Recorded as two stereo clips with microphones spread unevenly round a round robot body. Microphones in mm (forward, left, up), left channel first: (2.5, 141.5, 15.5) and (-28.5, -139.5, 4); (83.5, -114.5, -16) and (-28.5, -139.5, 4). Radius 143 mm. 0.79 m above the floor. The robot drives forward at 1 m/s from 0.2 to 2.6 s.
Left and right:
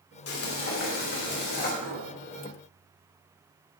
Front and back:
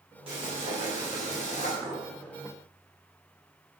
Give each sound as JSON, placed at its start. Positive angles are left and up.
{"t": 0.3, "sound": "frying", "azimuth_deg": 120, "distance_m": 3.0}
{"t": 1.8, "sound": "a clink", "azimuth_deg": -105, "distance_m": 5.0}